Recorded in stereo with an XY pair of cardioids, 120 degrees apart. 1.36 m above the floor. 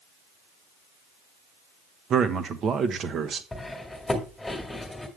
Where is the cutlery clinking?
10° left, 1.7 m.